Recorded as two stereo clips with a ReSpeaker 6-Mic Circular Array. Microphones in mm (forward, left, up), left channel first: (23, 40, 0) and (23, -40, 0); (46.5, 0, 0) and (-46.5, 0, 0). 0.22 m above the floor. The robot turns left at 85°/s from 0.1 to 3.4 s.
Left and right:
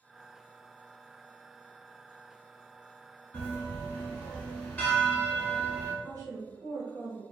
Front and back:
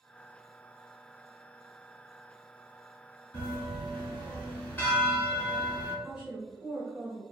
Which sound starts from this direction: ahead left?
A bell, at 3.3 s.